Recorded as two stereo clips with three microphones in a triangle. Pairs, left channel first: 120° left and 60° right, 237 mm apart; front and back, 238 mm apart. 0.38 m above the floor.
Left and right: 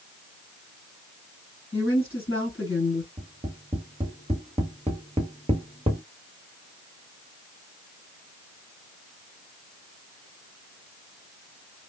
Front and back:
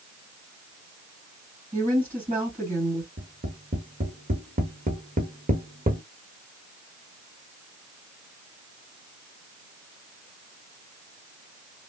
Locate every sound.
1.7 s a woman speaking: 130° left, 2.5 m
3.2 s tapping: 125° right, 1.0 m